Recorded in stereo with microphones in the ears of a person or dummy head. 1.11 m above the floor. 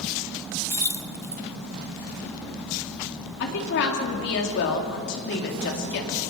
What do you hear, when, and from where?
0.7 s keys jangling: 15° left (ahead or behind), 0.5 m
3.4 s a woman speaking: 55° left (ahead or behind), 2.5 m